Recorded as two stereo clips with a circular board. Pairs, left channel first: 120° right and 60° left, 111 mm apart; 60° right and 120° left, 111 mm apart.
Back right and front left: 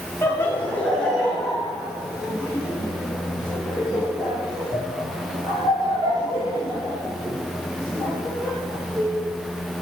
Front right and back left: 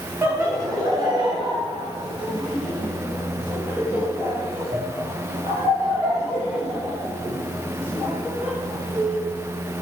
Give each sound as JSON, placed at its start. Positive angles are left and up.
{"t": 0.2, "sound": "laughter", "azimuth_deg": 180, "distance_m": 1.7}